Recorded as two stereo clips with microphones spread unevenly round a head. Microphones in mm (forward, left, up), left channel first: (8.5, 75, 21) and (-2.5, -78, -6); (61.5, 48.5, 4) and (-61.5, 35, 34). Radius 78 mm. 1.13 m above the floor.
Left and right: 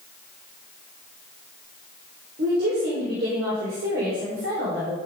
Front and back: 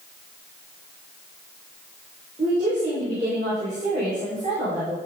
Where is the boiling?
No boiling in this recording.